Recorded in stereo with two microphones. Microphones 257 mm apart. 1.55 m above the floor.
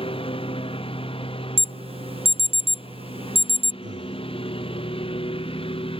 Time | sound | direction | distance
0.0 | a lawn mower | 20° left (ahead or behind) | ?
1.6 | an alarm | 25° right (ahead or behind) | ?
3.8 | breathing | 45° right (ahead or behind) | ?